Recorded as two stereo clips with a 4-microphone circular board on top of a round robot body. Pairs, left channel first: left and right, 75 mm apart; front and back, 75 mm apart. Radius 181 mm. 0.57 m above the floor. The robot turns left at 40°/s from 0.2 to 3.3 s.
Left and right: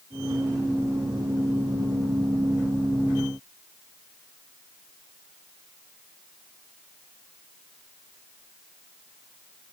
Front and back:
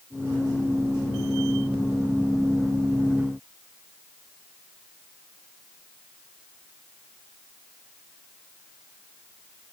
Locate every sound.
Only background noise.